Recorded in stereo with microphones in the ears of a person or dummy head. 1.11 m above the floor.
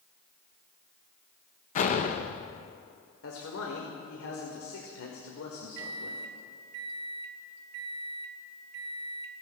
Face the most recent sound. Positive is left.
turn(degrees=-65)  # may be behind; listen again after turning